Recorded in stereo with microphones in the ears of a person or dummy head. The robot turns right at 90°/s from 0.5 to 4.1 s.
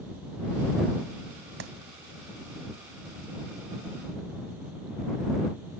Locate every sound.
1.6 s a clap: 60° right (ahead or behind); by 1.7 s 70° right (ahead or behind)